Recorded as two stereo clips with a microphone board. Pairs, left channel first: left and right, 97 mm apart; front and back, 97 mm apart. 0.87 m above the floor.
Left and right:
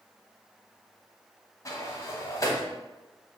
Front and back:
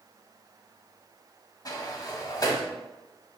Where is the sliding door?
40° left, 0.7 m.